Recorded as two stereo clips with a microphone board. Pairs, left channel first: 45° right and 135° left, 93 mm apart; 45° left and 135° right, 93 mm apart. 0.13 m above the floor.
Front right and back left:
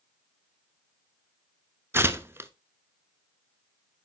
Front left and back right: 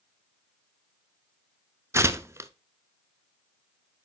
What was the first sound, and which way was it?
Tearing paper, 175° right.